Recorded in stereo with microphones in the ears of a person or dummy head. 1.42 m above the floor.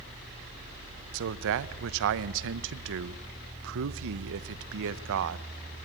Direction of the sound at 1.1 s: 70° right (ahead or behind).